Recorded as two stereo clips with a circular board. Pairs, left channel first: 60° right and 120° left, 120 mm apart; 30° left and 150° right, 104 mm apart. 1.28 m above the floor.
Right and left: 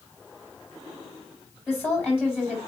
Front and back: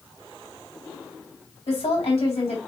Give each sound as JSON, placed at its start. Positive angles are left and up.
{"t": 1.7, "sound": "a woman speaking", "azimuth_deg": 15, "distance_m": 3.0}